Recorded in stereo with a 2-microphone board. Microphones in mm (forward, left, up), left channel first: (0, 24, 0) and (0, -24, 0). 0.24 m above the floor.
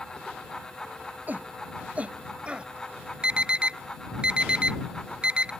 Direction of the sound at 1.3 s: 40° right (ahead or behind).